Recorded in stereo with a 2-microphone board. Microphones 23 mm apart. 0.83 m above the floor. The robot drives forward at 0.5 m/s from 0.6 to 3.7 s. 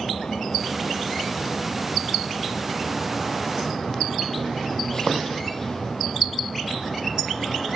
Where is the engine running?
30° left (ahead or behind); by 7.8 s 25° left (ahead or behind).